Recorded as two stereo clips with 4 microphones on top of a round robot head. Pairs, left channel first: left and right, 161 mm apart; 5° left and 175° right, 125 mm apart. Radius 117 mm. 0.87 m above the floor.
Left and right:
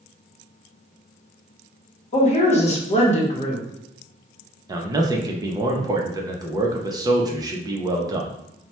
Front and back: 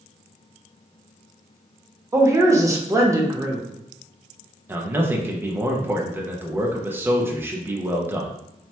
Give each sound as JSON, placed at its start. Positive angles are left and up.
{"t": 2.1, "sound": "a woman speaking", "azimuth_deg": 125, "distance_m": 0.9}
{"t": 4.7, "sound": "a man speaking", "azimuth_deg": -125, "distance_m": 0.6}